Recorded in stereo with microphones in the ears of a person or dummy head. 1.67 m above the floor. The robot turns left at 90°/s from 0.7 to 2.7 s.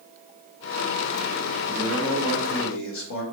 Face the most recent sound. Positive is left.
turn(degrees=110)